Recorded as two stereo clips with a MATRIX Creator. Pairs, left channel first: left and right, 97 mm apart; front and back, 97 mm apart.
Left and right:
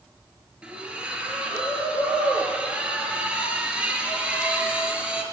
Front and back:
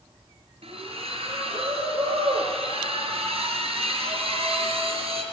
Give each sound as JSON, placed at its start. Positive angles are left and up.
{"t": 0.6, "sound": "a splash", "azimuth_deg": -170, "distance_m": 4.5}